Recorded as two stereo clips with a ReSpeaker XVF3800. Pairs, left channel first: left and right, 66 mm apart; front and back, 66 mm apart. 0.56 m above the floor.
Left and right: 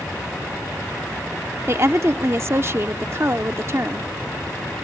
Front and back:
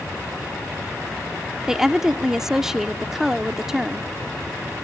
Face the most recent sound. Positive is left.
turn(degrees=-100)